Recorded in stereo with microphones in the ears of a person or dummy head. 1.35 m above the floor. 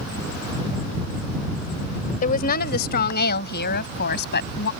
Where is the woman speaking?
45° left (ahead or behind); by 4.7 s 60° left (ahead or behind).